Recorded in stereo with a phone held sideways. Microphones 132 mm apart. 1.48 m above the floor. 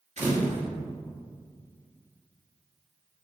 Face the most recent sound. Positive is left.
turn(degrees=-55)  # may be behind; listen again after turning